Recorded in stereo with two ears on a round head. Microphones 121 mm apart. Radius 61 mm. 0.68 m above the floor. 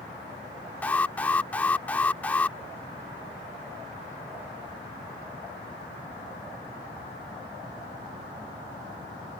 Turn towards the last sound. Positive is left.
turn(degrees=10)  # may be behind; listen again after turning